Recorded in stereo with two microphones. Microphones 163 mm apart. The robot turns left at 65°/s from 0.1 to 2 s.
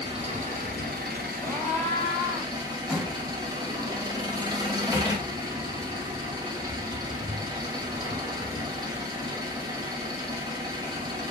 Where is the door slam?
5° right (ahead or behind), 0.7 m.